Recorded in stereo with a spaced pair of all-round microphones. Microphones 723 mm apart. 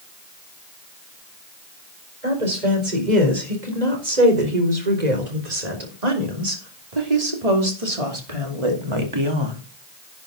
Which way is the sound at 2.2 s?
75° right (ahead or behind).